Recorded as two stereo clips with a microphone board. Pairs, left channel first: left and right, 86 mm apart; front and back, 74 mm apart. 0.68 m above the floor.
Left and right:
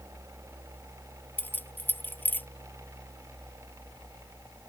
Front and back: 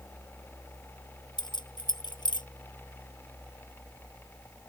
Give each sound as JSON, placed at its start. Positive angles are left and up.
{"t": 1.4, "sound": "keys jangling", "azimuth_deg": 20}